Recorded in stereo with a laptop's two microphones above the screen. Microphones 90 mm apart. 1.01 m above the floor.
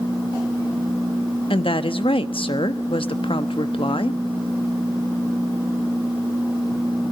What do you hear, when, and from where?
1.5 s a woman speaking: 80° left, 1.1 m